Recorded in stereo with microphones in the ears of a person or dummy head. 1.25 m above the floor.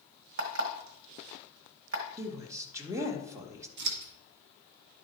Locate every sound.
0.4 s an alarm clock: 55° right (ahead or behind), 1.6 m
2.2 s a woman speaking: 20° right (ahead or behind), 1.6 m
3.8 s scissors: 70° right (ahead or behind), 1.7 m